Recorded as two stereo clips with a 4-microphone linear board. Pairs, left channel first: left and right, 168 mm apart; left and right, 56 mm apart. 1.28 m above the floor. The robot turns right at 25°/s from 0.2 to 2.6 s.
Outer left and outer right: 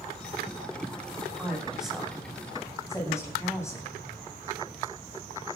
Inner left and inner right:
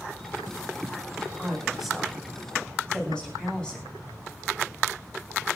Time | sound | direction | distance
1.4 | a woman speaking | 15° right (ahead or behind) | 9 m